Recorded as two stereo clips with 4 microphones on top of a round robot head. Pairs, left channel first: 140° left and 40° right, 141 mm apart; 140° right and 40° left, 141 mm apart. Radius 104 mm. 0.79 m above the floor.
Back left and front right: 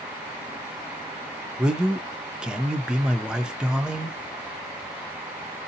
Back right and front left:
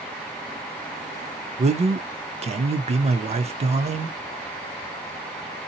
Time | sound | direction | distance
1.6 | a man speaking | 40° left | 0.6 m